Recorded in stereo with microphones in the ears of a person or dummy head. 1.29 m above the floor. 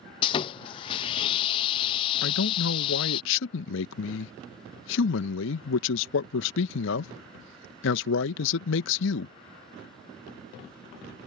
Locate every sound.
0.2 s sawing: 25° left (ahead or behind)
2.2 s a man speaking: 65° left (ahead or behind)